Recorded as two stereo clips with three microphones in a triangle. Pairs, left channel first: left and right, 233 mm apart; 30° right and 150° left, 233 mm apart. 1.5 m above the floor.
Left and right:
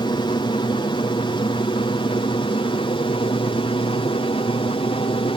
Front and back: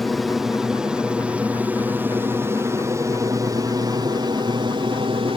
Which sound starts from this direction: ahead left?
An aircraft, at 0.0 s.